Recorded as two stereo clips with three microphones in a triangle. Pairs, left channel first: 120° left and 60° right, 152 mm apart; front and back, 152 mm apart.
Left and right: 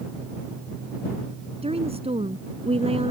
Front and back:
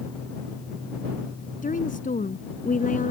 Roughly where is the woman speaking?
Ahead.